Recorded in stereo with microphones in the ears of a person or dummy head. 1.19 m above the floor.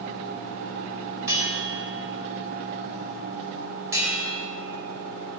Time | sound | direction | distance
1.3 | a bell | 20° right (ahead or behind) | 3.5 m